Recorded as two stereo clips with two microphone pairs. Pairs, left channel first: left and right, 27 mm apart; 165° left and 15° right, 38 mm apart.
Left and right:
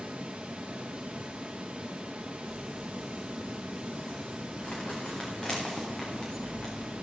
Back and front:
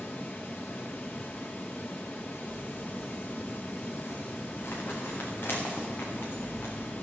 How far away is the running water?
About 2 m.